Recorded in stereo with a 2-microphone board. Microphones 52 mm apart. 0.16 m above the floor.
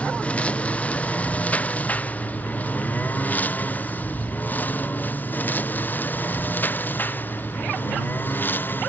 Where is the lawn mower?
25° left (ahead or behind); by 8.9 s 40° left (ahead or behind).